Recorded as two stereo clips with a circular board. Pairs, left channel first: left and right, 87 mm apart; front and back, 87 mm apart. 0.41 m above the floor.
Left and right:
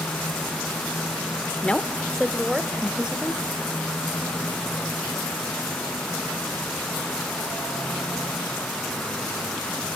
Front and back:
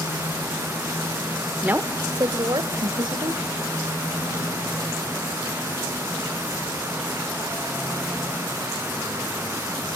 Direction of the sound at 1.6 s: 135° left.